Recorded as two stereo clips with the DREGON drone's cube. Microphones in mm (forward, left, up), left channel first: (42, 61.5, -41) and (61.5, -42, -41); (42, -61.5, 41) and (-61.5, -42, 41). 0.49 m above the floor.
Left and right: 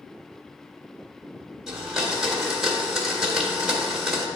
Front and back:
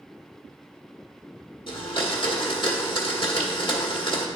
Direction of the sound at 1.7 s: 5° left.